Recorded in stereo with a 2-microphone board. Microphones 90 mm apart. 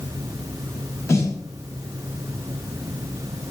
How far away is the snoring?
I don't hear snoring.